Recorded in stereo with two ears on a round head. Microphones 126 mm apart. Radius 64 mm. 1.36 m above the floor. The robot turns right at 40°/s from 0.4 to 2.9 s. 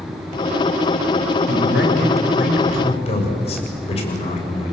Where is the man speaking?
75° left, 6.5 m; by 4.7 s 130° left, 6.5 m.